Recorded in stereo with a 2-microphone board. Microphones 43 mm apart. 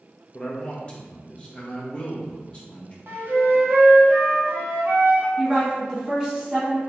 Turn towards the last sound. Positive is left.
turn(degrees=-15)  # may be behind; listen again after turning